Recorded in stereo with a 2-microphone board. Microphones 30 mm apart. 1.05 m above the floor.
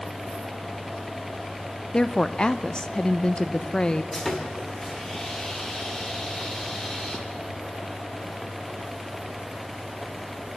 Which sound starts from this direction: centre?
Sawing, at 4.1 s.